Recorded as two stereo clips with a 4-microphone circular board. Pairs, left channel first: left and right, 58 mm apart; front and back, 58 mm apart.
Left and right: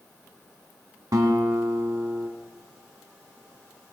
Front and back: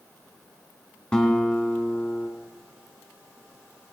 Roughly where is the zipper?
No zipper in this recording.